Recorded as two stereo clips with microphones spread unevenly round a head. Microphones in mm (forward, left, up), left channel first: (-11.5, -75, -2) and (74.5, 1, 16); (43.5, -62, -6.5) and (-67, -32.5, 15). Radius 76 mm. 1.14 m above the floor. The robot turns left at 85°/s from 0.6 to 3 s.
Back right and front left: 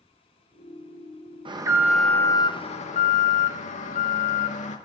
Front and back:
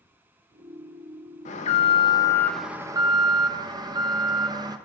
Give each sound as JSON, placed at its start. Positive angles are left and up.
{"t": 1.4, "sound": "an alarm", "azimuth_deg": -5, "distance_m": 1.3}